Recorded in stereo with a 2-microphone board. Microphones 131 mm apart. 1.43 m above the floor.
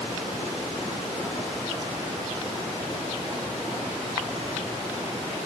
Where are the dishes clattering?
No dishes clattering in this recording.